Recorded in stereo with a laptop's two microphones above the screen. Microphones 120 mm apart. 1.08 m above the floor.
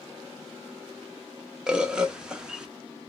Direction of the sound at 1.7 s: 5° right (ahead or behind).